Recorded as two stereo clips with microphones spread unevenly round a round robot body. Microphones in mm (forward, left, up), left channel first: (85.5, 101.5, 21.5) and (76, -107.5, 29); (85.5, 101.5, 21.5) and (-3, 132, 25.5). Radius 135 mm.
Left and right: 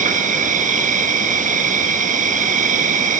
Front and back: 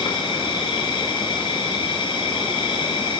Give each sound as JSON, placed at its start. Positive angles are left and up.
{"t": 0.0, "sound": "an insect", "azimuth_deg": -40, "distance_m": 1.1}